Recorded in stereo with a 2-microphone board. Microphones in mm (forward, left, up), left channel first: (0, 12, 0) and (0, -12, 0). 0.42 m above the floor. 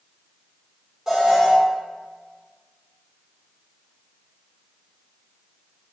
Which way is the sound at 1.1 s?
20° right (ahead or behind).